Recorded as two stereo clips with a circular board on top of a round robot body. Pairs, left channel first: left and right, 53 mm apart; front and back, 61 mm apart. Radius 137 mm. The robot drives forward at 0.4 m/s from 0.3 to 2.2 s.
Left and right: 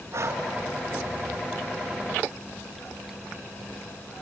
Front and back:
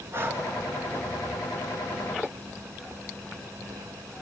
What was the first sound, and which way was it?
Breathing, 130° right.